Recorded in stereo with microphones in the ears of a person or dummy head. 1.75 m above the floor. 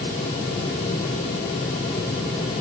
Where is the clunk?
I don't hear a clunk.